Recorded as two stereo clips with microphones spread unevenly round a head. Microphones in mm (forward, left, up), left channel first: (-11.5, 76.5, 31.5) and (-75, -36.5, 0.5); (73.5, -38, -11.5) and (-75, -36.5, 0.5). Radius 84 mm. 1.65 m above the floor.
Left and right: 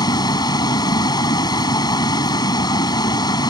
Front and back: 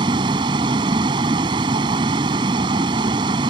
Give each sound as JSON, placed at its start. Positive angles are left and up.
{"t": 0.0, "sound": "a vehicle", "azimuth_deg": 115}